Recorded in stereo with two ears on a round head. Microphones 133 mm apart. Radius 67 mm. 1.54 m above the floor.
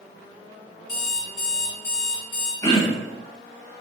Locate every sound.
0.9 s an alarm clock: 70° left (ahead or behind), 1.9 m
2.6 s throat clearing: 25° left (ahead or behind), 1.8 m